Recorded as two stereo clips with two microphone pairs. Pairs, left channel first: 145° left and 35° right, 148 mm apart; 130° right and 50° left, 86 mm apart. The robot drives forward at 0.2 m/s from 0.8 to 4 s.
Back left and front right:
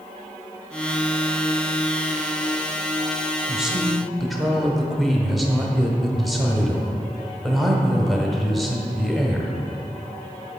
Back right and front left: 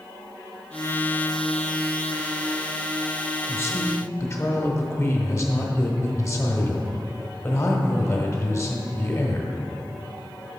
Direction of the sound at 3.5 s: 115° right.